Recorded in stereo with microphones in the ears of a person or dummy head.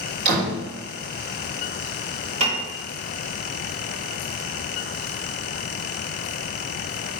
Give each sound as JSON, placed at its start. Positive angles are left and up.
{"t": 0.2, "sound": "a door slam", "side_deg": -60, "distance_m": 3.0}
{"t": 2.4, "sound": "a piano", "side_deg": -35, "distance_m": 2.5}